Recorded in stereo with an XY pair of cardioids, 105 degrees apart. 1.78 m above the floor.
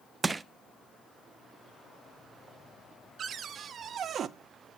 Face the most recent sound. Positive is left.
turn(degrees=-55)